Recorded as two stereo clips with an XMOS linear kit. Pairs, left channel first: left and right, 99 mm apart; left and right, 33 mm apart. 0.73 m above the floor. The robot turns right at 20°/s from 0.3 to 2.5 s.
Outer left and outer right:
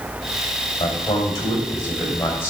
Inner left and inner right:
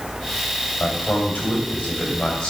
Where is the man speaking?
120° left, 3 m; by 2.5 s 155° left, 3 m.